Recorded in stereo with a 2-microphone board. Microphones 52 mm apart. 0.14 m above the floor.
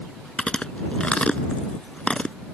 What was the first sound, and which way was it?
Chewing, 20° left (ahead or behind).